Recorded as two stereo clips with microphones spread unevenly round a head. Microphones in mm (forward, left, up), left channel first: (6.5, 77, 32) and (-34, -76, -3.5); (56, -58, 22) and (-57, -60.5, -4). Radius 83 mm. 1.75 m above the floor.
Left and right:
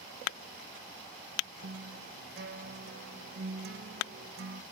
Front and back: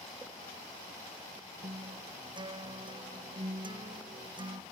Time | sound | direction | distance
1.6 | a guitar | 130° right | ?